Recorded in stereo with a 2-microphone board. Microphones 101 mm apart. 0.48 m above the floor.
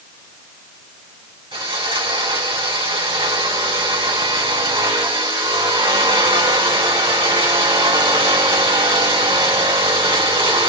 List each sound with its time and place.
1.5 s sawing: 60° right (ahead or behind), 2 m